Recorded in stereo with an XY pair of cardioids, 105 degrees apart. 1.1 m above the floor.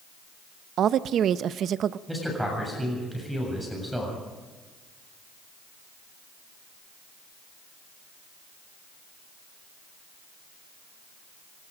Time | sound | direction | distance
0.8 | a woman speaking | 60° right | 0.7 m
2.1 | a man speaking | 5° right | 7.5 m